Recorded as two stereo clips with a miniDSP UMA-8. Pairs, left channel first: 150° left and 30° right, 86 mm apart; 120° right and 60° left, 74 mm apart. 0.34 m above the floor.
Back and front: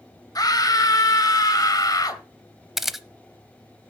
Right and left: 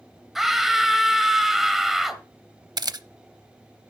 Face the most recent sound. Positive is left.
turn(degrees=55)